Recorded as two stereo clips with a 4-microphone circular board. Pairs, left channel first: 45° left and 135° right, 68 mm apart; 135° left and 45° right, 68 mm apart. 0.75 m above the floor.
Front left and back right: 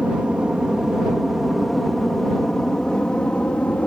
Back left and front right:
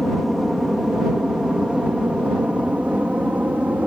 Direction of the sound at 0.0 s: 120° right.